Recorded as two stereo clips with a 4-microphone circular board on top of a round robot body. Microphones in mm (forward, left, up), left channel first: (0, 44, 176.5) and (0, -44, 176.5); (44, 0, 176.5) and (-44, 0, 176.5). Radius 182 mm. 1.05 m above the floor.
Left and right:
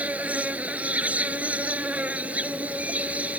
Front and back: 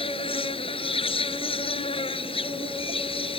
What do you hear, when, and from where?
0.0 s an insect: 15° right